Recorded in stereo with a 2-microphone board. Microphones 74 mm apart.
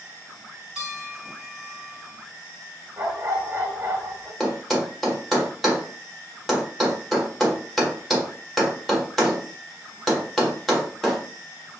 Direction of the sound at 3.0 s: 30° right (ahead or behind).